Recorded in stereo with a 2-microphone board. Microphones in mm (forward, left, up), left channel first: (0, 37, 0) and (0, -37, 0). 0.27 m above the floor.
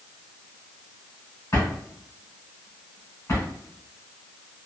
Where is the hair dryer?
No hair dryer in this recording.